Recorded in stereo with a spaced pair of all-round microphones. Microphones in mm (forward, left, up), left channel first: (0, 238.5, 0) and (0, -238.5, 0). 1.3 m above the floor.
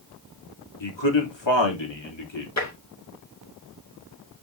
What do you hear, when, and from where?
0.8 s a man speaking: 65° left (ahead or behind), 3 m
2.6 s tapping: 35° left (ahead or behind), 2.5 m